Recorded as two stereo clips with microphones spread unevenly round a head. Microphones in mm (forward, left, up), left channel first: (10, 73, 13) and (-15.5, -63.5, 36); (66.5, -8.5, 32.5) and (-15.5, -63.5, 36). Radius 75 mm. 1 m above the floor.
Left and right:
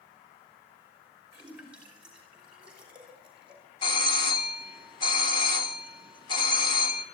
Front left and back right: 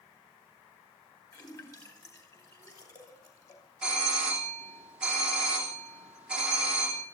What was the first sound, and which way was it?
A splash, 15° right.